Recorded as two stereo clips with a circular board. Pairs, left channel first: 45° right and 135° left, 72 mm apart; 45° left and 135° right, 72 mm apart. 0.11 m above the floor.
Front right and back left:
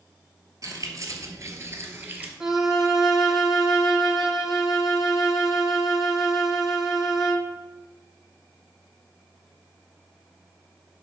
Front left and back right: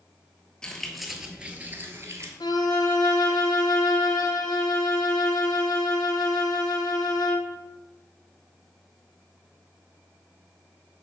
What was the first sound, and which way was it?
Keys jangling, 120° left.